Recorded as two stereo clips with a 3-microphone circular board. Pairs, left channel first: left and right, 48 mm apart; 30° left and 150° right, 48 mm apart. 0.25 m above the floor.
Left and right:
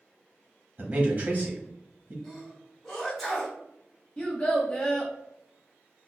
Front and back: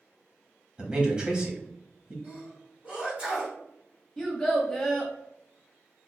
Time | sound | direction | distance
0.8 | a man speaking | 105° right | 1.2 m
2.2 | a sneeze | straight behind | 2.0 m
4.2 | a child speaking | 95° left | 0.6 m